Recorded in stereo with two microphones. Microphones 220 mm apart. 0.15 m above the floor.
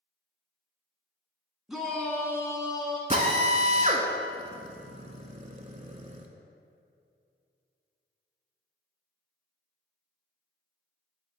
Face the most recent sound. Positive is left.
turn(degrees=-30)  # may be behind; listen again after turning